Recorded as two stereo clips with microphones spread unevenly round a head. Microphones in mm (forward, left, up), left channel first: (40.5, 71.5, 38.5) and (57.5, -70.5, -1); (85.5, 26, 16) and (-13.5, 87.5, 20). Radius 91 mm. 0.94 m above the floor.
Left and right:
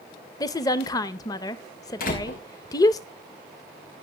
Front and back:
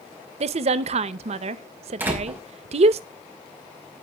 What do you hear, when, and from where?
0.4 s a woman speaking: 175° left, 0.7 m
2.0 s a door slam: 75° left, 5 m